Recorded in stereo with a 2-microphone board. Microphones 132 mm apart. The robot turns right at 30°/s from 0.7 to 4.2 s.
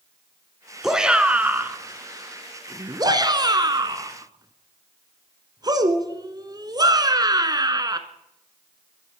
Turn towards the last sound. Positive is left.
turn(degrees=-30)  # may be behind; listen again after turning